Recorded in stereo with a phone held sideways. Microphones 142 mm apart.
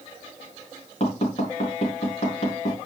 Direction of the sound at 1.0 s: 50° left (ahead or behind).